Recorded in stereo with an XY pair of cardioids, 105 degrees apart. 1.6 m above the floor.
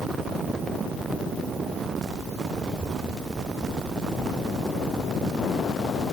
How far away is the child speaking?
About 7 m.